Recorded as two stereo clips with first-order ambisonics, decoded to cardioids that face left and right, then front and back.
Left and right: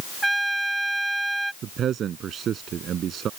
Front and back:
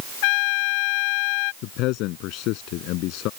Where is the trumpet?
5° right.